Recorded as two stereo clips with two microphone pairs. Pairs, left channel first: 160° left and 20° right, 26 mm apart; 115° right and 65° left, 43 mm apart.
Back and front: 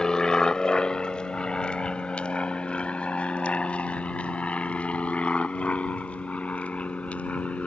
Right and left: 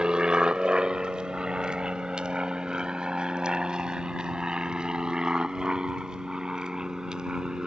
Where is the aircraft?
120° left; by 7.7 s 135° left.